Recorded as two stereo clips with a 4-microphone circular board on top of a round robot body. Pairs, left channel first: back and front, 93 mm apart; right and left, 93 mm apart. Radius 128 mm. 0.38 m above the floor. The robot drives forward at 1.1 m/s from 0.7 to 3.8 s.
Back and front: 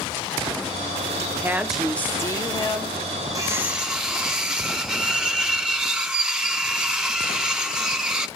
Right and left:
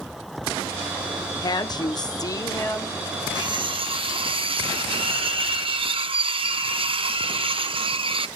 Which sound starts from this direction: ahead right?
A woman speaking, at 1.4 s.